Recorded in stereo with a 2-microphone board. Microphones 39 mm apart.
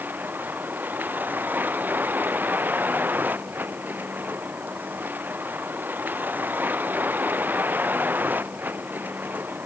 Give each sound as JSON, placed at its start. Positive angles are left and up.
{"t": 0.0, "sound": "a vehicle", "side_deg": -55}